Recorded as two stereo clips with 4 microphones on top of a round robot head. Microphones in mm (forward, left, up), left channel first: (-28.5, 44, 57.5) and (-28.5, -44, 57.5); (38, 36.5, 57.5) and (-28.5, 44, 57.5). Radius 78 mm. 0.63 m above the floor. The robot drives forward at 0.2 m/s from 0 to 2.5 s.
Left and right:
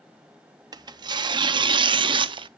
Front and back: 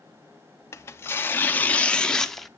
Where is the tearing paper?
55° right, 0.6 m; by 2.5 s 95° right, 0.5 m.